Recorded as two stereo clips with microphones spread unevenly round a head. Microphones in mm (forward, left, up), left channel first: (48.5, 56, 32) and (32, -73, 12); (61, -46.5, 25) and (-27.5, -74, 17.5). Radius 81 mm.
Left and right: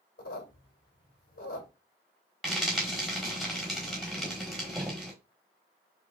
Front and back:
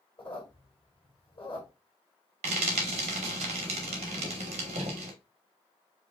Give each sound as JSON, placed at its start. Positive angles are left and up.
{"t": 0.2, "sound": "a squeak", "azimuth_deg": 80, "distance_m": 1.9}
{"t": 2.4, "sound": "frying", "azimuth_deg": 170, "distance_m": 1.0}